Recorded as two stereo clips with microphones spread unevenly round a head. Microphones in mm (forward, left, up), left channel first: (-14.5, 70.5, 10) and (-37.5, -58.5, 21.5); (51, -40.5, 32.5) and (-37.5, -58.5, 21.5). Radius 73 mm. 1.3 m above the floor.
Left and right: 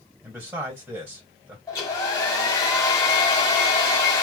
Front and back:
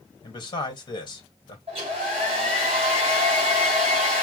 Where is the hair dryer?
140° left, 1.2 m.